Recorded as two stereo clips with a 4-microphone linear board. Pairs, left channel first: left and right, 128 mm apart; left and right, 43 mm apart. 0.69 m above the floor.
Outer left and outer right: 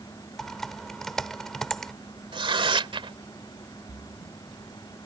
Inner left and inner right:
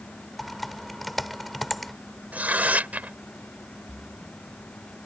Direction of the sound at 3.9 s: 45° right (ahead or behind).